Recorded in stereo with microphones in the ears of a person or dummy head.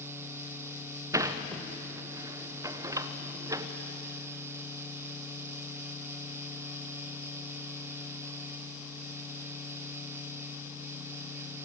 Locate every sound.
1.1 s a sliding door: 15° right (ahead or behind), 1.0 m